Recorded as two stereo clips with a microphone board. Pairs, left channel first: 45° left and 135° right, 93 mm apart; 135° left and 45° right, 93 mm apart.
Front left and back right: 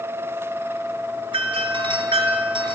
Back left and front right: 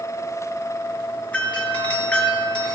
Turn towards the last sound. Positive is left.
turn(degrees=-150)